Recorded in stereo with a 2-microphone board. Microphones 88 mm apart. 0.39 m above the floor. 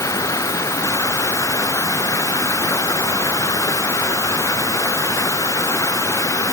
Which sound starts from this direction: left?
Running water, at 0.0 s.